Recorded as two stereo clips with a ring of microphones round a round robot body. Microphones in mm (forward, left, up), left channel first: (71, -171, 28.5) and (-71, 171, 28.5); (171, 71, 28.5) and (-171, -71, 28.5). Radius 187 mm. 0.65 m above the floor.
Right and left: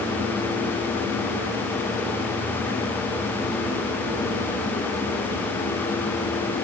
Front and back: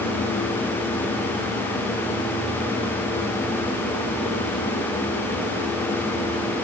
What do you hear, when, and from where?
Only background noise.